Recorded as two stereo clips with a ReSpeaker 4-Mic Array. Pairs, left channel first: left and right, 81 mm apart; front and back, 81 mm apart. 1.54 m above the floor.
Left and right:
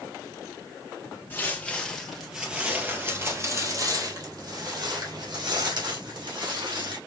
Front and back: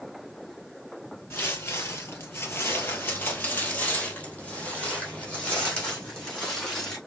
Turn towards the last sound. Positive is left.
turn(degrees=-80)